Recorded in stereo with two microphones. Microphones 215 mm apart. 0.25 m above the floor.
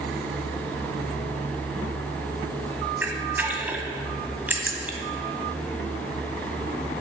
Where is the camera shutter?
10° right (ahead or behind), 0.8 m.